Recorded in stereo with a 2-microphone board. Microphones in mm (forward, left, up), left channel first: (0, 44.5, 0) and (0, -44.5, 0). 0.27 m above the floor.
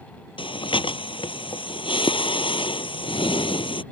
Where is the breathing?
75° left (ahead or behind).